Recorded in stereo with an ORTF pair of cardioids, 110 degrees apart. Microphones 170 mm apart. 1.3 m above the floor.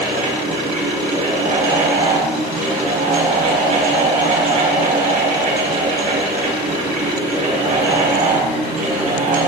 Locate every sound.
0.0 s a fan: 50° right, 4.5 m